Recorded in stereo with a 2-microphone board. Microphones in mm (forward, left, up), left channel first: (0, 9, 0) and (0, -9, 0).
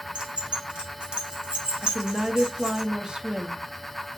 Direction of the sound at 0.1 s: 65° right (ahead or behind).